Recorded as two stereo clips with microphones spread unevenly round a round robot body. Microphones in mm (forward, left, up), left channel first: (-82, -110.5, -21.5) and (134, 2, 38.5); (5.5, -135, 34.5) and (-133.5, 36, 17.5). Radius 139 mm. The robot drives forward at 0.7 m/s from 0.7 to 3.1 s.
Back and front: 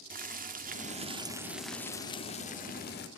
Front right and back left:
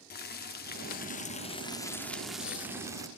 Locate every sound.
0.1 s boiling: 30° right, 1.1 m; by 3.1 s 160° right, 1.4 m